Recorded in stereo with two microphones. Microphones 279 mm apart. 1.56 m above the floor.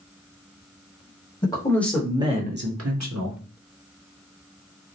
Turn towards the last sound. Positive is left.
turn(degrees=-85)